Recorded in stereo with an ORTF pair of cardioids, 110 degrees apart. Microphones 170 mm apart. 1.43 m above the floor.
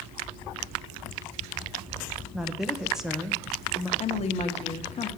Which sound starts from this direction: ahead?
A woman speaking, at 2.3 s.